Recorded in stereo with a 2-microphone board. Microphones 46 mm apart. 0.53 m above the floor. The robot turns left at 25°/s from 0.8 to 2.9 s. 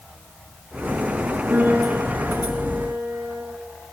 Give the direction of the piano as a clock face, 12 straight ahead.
1 o'clock.